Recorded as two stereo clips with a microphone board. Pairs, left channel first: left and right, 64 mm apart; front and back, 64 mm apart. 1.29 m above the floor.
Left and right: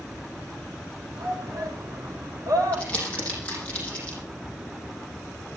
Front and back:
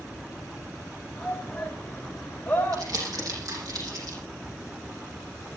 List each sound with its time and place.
1.1 s a shout: 75° right, 6.5 m; by 2.9 s 55° right, 5.5 m
2.7 s crumpling: 160° left, 7.5 m